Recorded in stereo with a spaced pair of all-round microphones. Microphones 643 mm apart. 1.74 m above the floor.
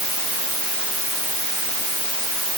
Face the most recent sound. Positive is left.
No sound to turn to.